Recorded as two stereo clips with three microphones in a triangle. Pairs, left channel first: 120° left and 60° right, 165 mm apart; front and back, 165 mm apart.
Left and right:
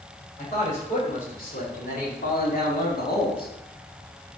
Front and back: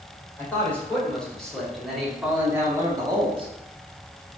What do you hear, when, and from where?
0.4 s a man speaking: 80° left, 3 m; by 3.5 s 130° left, 1.3 m